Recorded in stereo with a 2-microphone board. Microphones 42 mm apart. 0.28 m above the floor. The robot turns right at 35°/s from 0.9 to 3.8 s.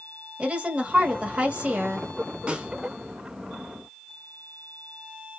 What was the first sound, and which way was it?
A woman speaking, 30° right (ahead or behind).